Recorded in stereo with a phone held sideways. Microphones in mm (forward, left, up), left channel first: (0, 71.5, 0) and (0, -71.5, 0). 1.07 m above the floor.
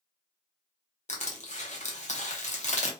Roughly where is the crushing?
Left.